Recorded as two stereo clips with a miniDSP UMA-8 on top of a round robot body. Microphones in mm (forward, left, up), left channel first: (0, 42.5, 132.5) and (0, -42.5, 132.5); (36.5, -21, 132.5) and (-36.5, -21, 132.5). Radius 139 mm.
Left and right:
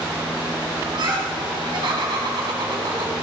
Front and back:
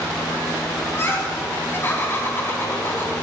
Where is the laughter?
60° right, 5 m.